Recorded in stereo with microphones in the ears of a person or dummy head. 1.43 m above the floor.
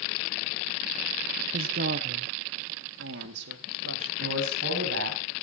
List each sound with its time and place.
1.5 s a woman speaking: 45° right (ahead or behind), 1.0 m; by 4.1 s 85° right, 2.5 m
4.2 s a man speaking: 60° right (ahead or behind), 7.5 m